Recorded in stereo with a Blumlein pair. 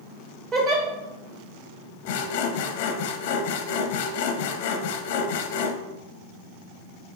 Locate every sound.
0.5 s a giggle: 30° right, 1.2 m
2.0 s sawing: 50° left, 0.5 m